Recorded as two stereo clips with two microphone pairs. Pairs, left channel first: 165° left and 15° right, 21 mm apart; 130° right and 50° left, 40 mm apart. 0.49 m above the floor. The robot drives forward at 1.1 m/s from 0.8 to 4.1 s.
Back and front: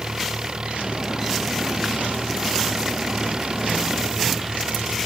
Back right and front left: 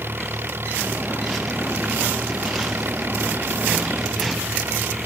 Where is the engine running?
30° left; by 5.1 s 35° left.